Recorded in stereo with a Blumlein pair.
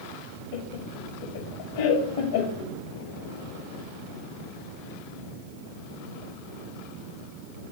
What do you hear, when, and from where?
0.5 s laughter: 55° left, 1.5 m